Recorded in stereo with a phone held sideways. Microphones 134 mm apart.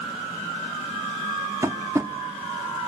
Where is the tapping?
20° right (ahead or behind), 1.2 m.